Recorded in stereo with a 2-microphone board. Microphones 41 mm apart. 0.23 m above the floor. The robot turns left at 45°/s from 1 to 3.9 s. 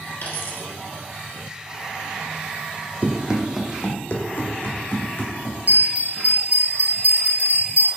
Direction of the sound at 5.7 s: 50° right (ahead or behind).